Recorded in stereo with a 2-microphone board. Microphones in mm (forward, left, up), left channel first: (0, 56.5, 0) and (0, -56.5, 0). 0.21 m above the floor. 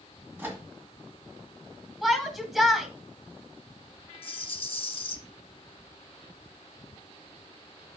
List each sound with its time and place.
0.4 s a microwave: 20° right (ahead or behind), 1.6 m
2.0 s a shout: 5° right (ahead or behind), 1.2 m
4.2 s a rattle: 50° left (ahead or behind), 0.6 m